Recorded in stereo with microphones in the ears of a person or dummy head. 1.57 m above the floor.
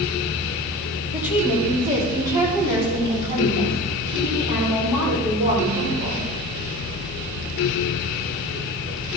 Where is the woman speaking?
5° right (ahead or behind), 3 m; by 6.2 s 25° right (ahead or behind), 5.5 m.